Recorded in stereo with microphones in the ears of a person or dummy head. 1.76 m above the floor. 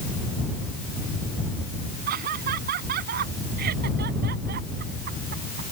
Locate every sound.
2.1 s laughter: 50° right (ahead or behind); by 5.6 s 55° right (ahead or behind)